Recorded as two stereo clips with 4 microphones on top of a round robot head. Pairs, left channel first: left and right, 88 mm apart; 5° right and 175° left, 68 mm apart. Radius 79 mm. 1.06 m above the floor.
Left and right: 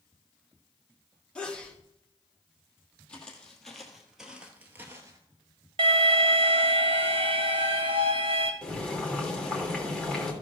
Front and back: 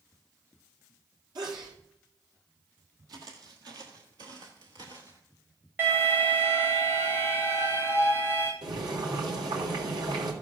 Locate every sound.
1.4 s a sneeze: 170° left, 3 m
3.1 s footsteps: 165° left, 2.0 m; by 5.2 s 120° right, 1.2 m
5.8 s an alarm: 115° right, 1.7 m
8.6 s boiling: 170° left, 2.5 m